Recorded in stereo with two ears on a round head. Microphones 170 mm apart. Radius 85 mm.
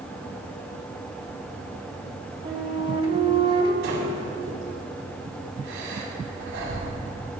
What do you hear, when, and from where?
2.5 s a flute: 30° right (ahead or behind), 1.2 m
3.8 s breathing: 75° right (ahead or behind), 4 m